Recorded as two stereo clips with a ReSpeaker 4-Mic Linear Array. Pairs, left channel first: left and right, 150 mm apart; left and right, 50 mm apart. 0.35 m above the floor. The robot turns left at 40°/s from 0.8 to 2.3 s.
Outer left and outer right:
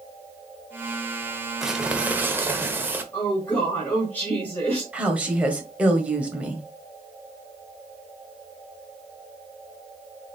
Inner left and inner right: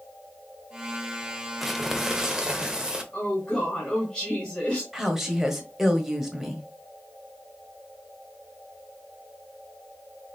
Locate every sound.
1.6 s crumpling: centre (ahead or behind), 0.9 m; by 3.0 s 15° right (ahead or behind), 0.9 m
3.1 s a woman speaking: 15° left (ahead or behind), 1.2 m
4.9 s a woman speaking: 10° right (ahead or behind), 1.4 m